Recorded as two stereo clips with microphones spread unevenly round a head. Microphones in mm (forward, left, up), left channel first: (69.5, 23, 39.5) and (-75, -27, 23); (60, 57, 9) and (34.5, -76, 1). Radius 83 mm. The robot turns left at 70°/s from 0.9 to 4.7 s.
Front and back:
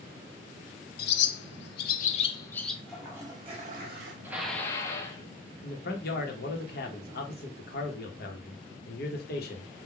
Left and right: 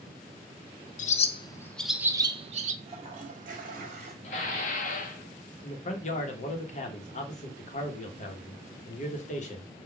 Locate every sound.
1.0 s a bird: 50° left, 0.5 m; by 2.8 s 75° right, 0.5 m
2.9 s a toilet flushing: 60° right, 1.0 m; by 4.1 s 150° right, 1.0 m
4.2 s dishes clattering: 120° left, 0.6 m; by 5.2 s 85° left, 0.6 m
5.6 s a man speaking: 45° left, 1.2 m